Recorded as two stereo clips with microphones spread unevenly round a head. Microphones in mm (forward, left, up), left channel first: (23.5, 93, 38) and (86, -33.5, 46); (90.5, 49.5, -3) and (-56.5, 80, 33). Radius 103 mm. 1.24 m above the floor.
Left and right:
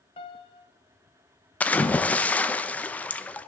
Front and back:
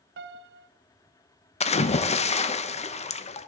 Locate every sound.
0.2 s a piano: 175° left, 0.5 m
1.6 s a splash: 35° left, 0.8 m